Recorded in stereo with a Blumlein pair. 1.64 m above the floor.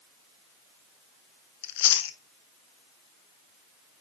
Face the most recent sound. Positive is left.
turn(degrees=50)